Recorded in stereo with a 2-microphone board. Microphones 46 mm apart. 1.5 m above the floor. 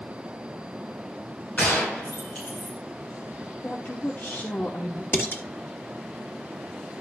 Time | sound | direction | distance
1.6 | a gunshot | 35° left (ahead or behind) | 6 m
3.6 | a woman speaking | 50° left (ahead or behind) | 1.2 m
5.1 | dishes clattering | 50° left (ahead or behind) | 2.0 m